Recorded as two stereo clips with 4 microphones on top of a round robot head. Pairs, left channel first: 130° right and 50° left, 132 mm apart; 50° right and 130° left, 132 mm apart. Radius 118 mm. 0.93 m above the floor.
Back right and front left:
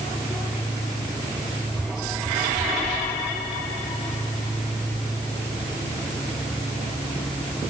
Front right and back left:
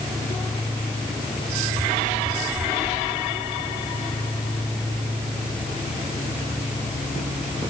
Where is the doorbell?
I don't hear a doorbell.